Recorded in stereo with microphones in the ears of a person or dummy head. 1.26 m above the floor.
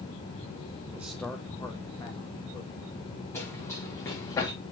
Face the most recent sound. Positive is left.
turn(degrees=20)  # may be behind; listen again after turning